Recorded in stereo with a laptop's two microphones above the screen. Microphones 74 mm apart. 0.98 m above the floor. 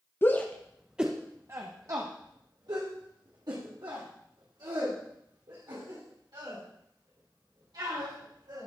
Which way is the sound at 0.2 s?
30° left (ahead or behind).